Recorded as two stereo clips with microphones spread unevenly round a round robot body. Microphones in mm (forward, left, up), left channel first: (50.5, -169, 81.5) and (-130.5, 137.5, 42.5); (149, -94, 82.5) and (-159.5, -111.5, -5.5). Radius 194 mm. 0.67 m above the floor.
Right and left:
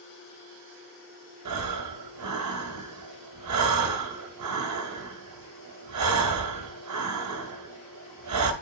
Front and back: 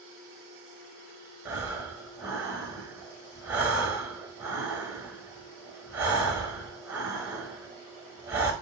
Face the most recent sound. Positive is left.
turn(degrees=115)